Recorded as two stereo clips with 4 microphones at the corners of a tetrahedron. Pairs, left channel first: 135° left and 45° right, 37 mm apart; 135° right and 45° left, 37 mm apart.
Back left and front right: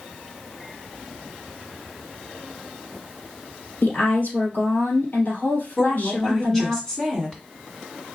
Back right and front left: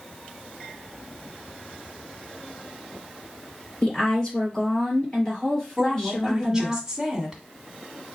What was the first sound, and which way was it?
A woman speaking, 160° left.